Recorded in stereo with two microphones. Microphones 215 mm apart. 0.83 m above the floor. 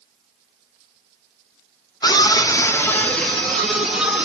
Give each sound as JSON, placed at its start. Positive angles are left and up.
{"t": 2.0, "sound": "a scream", "side_deg": 20, "distance_m": 0.7}